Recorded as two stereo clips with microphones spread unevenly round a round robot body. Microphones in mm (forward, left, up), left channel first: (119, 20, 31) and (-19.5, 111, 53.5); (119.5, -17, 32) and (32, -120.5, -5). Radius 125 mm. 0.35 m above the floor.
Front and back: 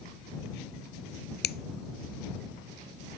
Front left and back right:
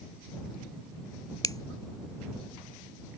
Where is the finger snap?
15° right.